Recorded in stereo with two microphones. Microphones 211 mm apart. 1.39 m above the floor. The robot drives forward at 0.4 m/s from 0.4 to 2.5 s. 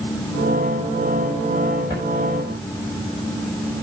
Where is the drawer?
50° right (ahead or behind), 4.5 m; by 2.1 s 55° right (ahead or behind), 4.5 m.